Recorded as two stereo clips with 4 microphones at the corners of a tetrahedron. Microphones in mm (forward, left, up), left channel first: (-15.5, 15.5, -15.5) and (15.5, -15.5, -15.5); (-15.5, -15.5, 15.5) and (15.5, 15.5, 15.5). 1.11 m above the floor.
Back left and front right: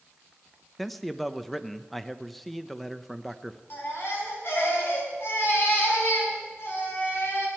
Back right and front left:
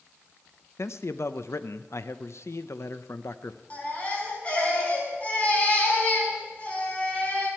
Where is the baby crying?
165° left, 4.5 m.